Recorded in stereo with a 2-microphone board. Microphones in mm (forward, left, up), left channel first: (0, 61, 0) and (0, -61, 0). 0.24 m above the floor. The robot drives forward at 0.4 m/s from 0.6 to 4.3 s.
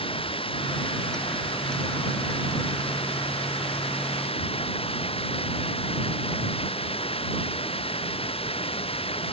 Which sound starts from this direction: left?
Running water, at 0.0 s.